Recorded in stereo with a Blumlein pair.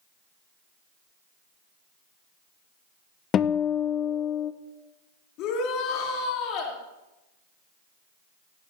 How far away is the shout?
About 4 m.